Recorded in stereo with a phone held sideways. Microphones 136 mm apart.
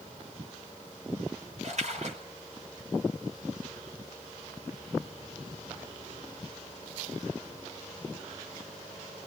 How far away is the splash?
About 5 m.